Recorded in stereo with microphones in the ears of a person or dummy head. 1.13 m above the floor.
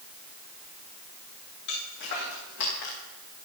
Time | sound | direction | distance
1.7 | footsteps | 60° left (ahead or behind) | 6.5 m